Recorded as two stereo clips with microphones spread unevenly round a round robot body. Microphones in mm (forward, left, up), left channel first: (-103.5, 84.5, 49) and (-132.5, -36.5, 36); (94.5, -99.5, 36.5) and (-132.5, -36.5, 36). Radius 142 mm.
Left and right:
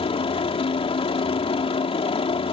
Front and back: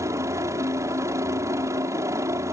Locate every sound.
0.0 s a helicopter: 90° left